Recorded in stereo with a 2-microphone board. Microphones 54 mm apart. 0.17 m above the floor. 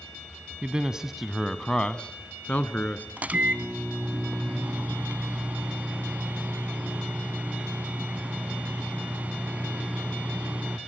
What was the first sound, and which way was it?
A man speaking, 20° right (ahead or behind).